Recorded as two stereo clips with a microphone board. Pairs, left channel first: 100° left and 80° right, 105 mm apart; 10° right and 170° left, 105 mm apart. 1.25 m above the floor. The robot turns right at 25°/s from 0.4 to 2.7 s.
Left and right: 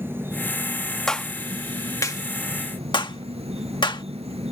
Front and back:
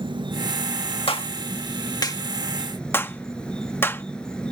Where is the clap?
15° left; by 4.0 s 55° left.